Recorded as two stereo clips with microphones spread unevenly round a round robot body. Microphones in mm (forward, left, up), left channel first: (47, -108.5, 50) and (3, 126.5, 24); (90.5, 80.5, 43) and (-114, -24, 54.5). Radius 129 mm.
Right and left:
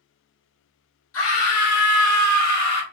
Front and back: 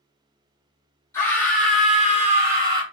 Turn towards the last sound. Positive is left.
turn(degrees=-80)